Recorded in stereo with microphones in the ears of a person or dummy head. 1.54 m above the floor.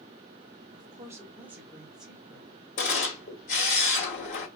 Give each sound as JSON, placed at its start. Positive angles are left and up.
{"t": 0.7, "sound": "a woman speaking", "side_deg": -25, "distance_m": 0.6}
{"t": 2.8, "sound": "a camera shutter", "side_deg": 45, "distance_m": 1.9}